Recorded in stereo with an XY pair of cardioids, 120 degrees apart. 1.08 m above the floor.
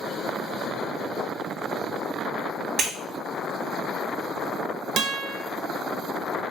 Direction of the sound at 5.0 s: 55° right.